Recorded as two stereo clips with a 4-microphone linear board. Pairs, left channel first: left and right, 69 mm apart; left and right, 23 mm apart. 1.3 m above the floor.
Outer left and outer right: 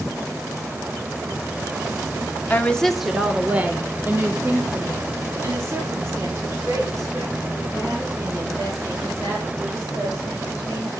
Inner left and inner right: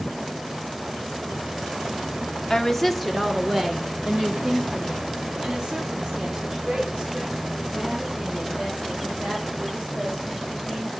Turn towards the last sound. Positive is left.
turn(degrees=-50)  # may be behind; listen again after turning